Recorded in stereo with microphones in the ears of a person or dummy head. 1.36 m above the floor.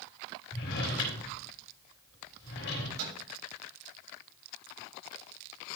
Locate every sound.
0.5 s a drawer: 70° left (ahead or behind), 3.5 m
3.0 s a microwave: 85° right, 6.5 m